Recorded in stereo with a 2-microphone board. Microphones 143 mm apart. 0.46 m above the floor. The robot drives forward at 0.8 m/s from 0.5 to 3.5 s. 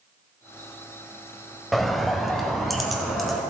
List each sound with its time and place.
1.7 s a bird: centre (ahead or behind), 0.7 m